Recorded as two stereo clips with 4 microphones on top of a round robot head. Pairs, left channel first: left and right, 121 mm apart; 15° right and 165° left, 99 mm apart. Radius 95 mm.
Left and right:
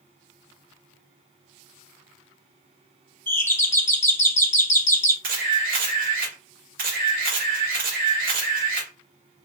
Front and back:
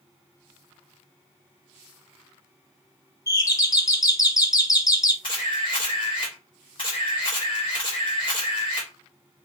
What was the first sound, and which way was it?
A doorbell, 25° left.